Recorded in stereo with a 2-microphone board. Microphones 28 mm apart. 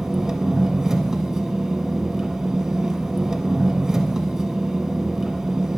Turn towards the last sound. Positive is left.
turn(degrees=-20)  # may be behind; listen again after turning